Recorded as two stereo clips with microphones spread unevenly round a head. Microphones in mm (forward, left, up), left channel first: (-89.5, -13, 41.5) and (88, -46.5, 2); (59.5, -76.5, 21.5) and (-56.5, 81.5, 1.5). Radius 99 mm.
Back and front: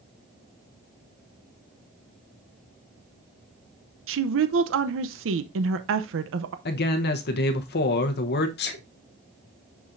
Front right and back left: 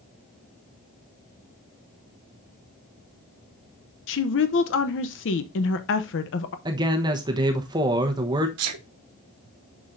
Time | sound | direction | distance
4.1 | a woman speaking | 25° right | 0.6 m
6.7 | a man speaking | 160° right | 0.9 m
8.6 | a sneeze | 125° left | 1.2 m